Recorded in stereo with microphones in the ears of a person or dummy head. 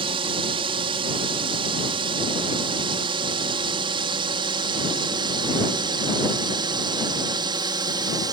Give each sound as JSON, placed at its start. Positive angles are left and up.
{"t": 0.0, "sound": "a drone", "side_deg": -30}